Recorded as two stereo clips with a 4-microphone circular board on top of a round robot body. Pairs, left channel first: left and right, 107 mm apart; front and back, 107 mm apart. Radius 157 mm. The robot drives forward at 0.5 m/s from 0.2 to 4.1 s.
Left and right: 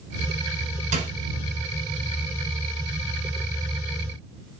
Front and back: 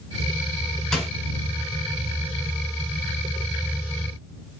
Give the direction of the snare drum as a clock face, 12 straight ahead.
3 o'clock.